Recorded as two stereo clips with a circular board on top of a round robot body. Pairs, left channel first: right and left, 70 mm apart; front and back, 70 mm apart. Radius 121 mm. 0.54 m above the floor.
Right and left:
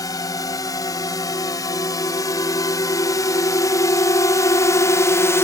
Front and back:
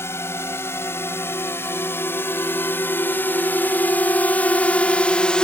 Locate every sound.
0.0 s a drone: 55° right; by 5.5 s 75° right